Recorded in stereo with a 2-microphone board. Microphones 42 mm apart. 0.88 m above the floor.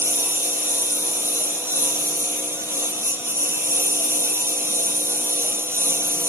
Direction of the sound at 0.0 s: 60° right (ahead or behind).